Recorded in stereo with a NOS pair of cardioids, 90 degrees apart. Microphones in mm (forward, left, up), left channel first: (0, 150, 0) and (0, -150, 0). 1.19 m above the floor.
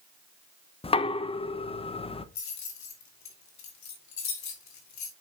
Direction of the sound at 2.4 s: 65° left.